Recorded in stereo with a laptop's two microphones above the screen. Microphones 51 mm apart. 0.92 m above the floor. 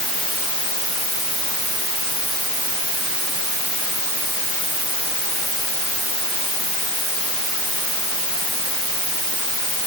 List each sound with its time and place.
Only background noise.